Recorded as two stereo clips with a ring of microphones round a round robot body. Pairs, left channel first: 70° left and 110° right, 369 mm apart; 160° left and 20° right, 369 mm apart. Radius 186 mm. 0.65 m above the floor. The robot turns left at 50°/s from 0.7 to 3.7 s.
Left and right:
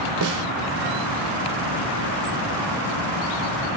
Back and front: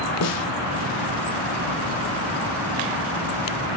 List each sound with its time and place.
0.2 s a snare drum: 155° right, 1.5 m